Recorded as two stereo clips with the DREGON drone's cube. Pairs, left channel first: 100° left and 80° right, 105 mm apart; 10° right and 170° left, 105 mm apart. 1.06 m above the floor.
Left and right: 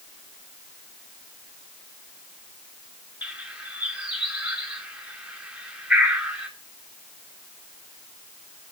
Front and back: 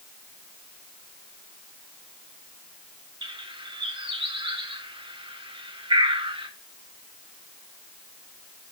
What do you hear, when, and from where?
3.2 s a bird: 160° right, 3.5 m